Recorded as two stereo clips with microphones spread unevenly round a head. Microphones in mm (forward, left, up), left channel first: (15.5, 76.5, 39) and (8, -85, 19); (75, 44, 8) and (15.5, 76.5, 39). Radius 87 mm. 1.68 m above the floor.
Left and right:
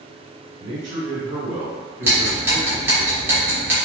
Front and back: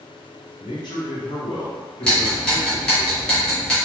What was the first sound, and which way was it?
A man speaking, 50° right.